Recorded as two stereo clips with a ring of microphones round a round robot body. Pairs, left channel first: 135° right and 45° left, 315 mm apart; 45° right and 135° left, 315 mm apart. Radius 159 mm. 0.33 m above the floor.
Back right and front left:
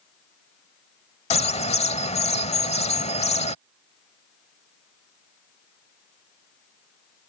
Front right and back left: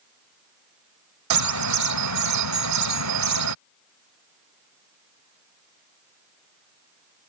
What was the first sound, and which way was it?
A bird, 155° left.